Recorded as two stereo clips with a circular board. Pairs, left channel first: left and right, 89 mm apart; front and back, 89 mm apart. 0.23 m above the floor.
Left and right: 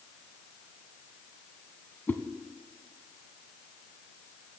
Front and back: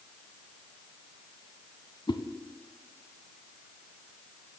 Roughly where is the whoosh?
Ahead.